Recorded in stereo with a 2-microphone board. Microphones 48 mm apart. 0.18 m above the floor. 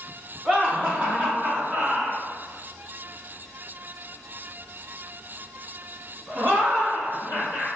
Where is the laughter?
25° right (ahead or behind), 1.4 m; by 7.7 s 35° right (ahead or behind), 5 m.